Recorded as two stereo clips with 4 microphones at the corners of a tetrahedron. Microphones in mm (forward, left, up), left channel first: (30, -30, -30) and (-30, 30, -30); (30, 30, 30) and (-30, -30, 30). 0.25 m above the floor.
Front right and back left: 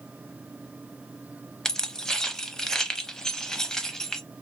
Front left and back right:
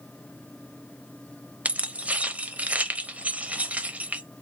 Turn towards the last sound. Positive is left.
turn(degrees=-110)